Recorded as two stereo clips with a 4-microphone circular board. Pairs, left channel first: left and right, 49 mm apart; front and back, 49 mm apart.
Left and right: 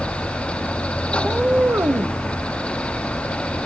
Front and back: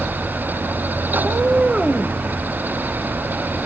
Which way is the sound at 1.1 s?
155° right.